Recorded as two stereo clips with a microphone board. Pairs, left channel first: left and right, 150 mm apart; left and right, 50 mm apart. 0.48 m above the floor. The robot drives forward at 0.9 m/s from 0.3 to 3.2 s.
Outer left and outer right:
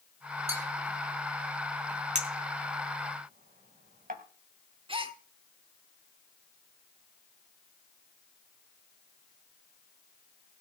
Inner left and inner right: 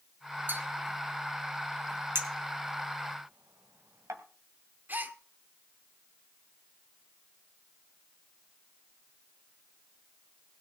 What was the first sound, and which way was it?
A bell, 45° right (ahead or behind).